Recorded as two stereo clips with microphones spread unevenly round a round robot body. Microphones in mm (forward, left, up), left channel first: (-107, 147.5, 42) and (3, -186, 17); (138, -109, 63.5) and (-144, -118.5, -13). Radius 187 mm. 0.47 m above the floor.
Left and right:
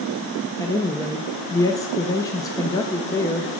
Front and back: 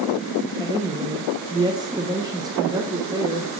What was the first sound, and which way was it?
A woman speaking, 170° right.